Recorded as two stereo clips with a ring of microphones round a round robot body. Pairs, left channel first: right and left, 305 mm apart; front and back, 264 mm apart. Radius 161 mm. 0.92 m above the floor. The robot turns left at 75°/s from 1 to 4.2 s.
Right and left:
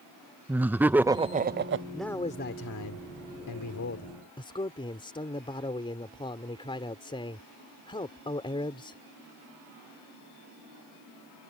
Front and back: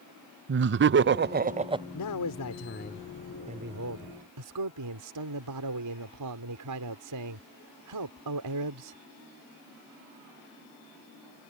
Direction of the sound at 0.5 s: 170° left.